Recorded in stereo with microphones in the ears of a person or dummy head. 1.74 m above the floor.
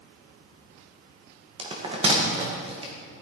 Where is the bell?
30° right (ahead or behind), 2.5 m.